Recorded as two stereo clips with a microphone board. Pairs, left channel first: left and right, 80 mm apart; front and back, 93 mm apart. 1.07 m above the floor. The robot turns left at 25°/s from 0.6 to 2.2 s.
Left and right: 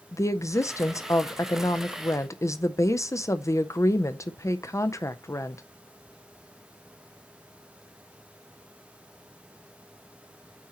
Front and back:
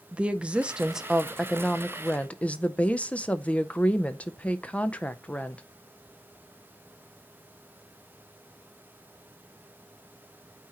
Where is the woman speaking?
110° left, 0.5 m; by 5.6 s 70° left, 0.5 m.